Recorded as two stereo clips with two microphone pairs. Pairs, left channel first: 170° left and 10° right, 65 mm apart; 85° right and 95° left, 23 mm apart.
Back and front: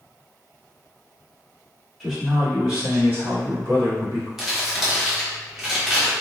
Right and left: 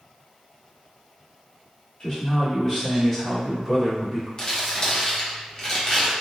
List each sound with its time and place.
2.0 s a man speaking: 100° right, 1.3 m; by 4.3 s 10° right, 1.6 m
4.4 s crumpling: 90° right, 0.8 m